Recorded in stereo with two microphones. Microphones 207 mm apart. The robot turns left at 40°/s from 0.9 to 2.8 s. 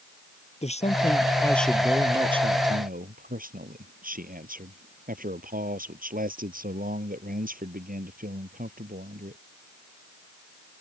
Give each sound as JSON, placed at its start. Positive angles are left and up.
{"t": 0.6, "sound": "a man speaking", "azimuth_deg": 30}